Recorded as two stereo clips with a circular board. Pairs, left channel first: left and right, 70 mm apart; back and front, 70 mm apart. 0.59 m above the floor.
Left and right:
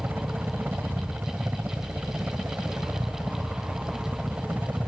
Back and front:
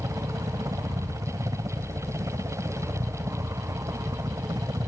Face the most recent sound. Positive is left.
turn(degrees=-25)